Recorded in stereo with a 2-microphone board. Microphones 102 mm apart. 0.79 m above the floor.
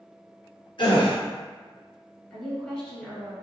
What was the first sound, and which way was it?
A gasp, 55° left (ahead or behind).